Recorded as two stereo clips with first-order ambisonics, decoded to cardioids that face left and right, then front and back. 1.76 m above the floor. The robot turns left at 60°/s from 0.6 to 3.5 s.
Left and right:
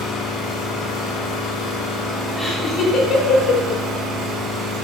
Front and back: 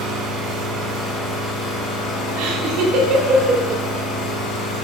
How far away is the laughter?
About 1.6 m.